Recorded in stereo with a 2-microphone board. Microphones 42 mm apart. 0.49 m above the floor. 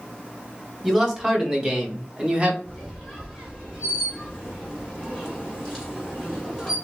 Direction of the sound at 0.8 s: 15° right (ahead or behind).